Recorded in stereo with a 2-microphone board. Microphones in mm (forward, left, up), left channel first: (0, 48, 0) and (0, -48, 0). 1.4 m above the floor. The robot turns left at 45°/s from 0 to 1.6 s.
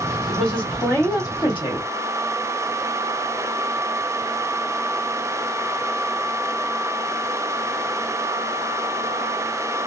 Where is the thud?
I don't hear a thud.